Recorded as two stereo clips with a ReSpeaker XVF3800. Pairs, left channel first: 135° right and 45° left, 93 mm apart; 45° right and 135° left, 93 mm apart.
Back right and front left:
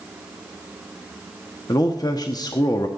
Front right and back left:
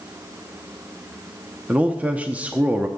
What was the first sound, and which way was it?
A man speaking, 155° right.